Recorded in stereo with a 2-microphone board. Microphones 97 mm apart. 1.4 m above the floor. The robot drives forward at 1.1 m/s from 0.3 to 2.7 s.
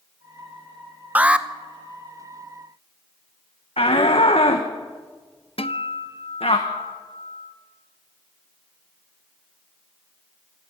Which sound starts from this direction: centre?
An alarm, at 1.1 s.